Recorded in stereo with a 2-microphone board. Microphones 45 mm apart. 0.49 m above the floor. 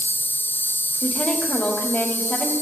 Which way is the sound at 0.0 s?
50° left (ahead or behind).